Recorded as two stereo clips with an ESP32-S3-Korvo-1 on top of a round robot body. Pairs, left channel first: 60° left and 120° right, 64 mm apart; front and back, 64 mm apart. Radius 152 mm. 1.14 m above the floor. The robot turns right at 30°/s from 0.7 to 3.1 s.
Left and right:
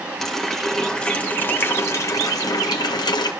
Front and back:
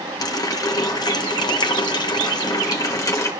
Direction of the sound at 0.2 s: 30° right.